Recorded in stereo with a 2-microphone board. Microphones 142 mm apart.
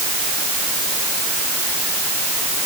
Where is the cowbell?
I don't hear a cowbell.